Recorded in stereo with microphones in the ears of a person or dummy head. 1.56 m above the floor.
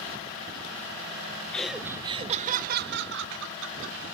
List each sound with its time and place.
1.5 s laughter: 5° left (ahead or behind), 0.7 m; by 4.0 s 80° right, 1.5 m